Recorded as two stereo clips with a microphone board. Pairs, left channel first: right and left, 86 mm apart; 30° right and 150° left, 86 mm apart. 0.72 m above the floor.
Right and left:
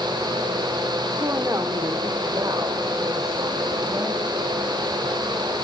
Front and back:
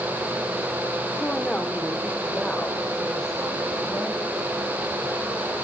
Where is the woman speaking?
45° left, 1.7 m; by 4.4 s 55° left, 5 m.